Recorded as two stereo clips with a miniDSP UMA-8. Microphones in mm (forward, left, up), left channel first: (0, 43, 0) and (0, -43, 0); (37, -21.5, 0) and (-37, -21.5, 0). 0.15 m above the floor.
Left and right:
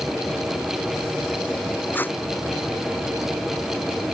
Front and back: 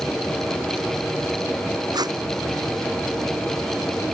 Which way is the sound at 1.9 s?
155° left.